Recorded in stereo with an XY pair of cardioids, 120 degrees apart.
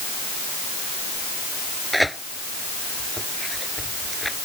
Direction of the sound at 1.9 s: Straight ahead.